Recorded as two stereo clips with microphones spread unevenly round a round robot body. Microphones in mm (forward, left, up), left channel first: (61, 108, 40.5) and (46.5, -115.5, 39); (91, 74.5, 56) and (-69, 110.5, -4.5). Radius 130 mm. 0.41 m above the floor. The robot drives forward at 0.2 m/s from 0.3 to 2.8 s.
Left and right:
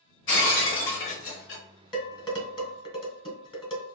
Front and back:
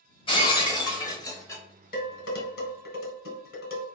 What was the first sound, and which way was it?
Breaking glass, 55° left.